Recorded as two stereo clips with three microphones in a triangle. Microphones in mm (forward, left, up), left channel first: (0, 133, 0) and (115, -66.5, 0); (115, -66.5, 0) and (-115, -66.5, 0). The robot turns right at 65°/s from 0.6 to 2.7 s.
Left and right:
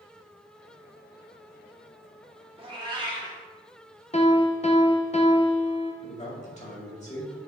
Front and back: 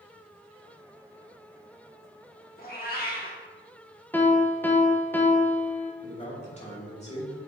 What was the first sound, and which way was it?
A cat meowing, 10° right.